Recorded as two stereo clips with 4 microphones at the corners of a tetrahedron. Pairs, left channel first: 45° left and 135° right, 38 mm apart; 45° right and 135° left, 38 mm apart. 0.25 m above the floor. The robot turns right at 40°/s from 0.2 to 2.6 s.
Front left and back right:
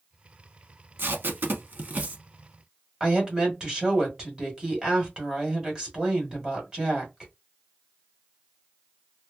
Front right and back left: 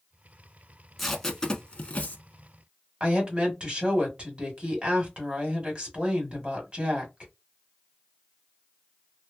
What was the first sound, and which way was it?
Tape being pulled, 130° right.